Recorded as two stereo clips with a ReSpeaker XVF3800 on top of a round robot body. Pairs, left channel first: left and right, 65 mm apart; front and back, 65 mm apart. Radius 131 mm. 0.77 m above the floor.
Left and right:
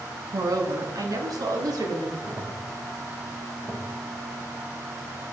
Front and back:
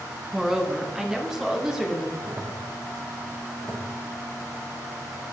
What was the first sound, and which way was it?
A woman speaking, 100° right.